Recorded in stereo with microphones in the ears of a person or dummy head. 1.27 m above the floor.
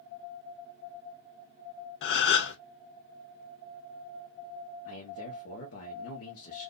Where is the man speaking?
70° left (ahead or behind), 1.1 m.